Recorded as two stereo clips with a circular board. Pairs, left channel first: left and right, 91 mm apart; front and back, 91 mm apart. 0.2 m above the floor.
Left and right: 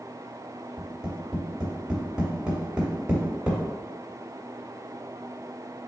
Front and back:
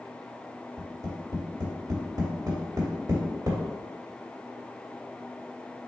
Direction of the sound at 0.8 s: 170° right.